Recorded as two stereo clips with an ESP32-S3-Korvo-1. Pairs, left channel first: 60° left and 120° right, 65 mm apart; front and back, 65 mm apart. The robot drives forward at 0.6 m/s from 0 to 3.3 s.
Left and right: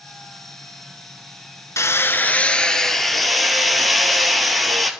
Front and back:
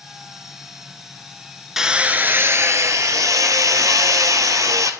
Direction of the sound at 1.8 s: 95° left.